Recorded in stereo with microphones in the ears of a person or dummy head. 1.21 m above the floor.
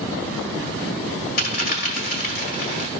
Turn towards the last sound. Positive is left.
turn(degrees=45)  # may be behind; listen again after turning